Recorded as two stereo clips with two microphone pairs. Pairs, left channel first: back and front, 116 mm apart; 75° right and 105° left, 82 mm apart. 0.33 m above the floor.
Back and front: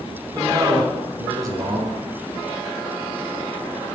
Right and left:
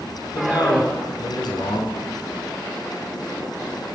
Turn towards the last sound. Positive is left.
turn(degrees=-55)